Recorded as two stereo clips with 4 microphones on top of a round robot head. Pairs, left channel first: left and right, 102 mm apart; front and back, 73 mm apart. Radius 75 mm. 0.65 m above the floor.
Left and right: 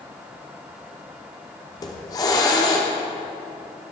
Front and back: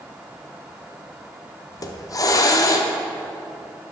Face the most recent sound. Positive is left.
turn(degrees=35)